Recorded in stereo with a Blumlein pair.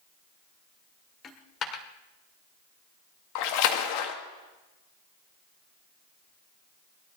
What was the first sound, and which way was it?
A dropped coin, 25° left.